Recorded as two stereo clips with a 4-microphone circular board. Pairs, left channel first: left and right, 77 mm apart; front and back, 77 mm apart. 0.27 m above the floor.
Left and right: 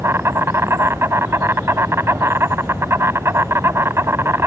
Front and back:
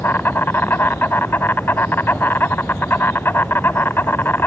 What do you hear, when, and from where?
0.0 s an insect: 50° right